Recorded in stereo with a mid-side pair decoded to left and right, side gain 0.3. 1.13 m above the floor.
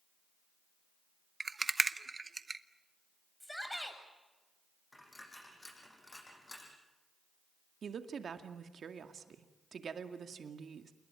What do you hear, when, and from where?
1.4 s a rattle: 35° right, 1.1 m
3.4 s a shout: 10° left, 8 m
4.9 s a dropped coin: 20° left, 8 m
7.8 s a woman speaking: 65° right, 2 m